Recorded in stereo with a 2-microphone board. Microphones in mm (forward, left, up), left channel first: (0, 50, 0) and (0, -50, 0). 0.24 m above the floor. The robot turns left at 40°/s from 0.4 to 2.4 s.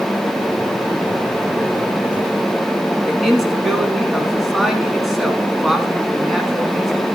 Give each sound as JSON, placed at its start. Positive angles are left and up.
{"t": 3.0, "sound": "a man speaking", "side_deg": 0, "distance_m": 1.8}